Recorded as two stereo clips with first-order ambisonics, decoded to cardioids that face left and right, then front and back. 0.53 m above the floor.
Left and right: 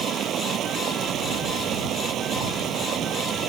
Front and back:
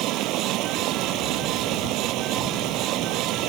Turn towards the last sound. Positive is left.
turn(degrees=-145)